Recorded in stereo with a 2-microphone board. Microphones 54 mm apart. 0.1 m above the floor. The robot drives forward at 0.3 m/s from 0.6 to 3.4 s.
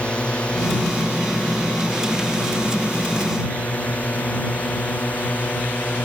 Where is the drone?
20° left (ahead or behind); by 6.0 s 30° left (ahead or behind).